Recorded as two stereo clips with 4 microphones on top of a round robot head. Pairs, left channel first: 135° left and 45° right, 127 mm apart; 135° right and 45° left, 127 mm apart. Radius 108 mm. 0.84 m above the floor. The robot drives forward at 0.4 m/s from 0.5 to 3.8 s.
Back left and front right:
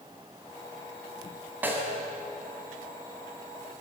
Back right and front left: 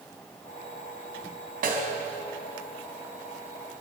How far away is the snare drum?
About 4 m.